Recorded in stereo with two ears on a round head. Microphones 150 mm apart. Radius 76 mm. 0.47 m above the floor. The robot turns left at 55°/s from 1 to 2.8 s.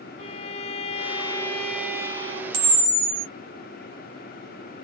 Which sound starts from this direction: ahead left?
A violin, at 0.2 s.